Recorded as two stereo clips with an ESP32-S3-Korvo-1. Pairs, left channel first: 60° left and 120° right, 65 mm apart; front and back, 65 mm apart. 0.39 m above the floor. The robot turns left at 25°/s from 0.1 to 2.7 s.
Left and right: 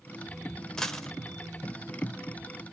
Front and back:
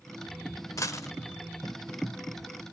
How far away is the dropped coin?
About 0.6 m.